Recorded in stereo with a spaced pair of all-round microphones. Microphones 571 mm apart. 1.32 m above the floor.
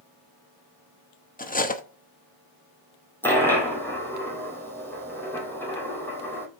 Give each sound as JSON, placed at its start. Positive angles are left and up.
{"t": 1.4, "sound": "cutlery clinking", "side_deg": 15, "distance_m": 0.7}
{"t": 3.2, "sound": "a dropped coin", "side_deg": 5, "distance_m": 2.0}